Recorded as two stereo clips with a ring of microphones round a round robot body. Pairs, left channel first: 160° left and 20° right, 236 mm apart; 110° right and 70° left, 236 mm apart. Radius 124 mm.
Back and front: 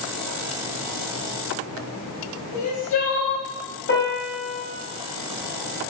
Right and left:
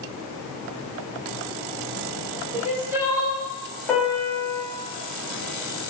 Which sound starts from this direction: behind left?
Crying, at 2.5 s.